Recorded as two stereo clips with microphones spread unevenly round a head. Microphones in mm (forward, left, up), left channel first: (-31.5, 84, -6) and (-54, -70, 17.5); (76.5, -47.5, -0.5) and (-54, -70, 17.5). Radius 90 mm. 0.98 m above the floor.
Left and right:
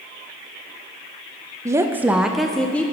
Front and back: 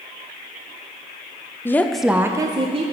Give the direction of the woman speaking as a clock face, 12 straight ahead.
1 o'clock.